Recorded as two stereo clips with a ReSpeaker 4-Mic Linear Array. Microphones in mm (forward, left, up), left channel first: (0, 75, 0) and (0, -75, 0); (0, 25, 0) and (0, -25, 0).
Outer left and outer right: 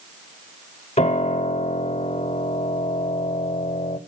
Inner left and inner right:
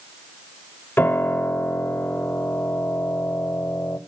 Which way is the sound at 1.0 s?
45° left (ahead or behind).